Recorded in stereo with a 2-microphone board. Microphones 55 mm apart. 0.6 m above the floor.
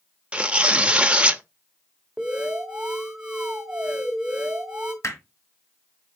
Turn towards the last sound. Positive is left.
turn(degrees=55)  # may be behind; listen again after turning